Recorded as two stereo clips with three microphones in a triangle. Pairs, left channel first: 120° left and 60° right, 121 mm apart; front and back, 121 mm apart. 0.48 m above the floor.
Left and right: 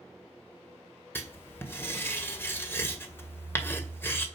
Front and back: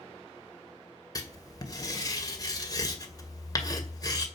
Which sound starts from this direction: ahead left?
Writing, at 1.1 s.